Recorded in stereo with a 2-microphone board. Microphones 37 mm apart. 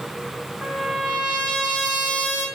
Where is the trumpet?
35° right (ahead or behind), 5 m.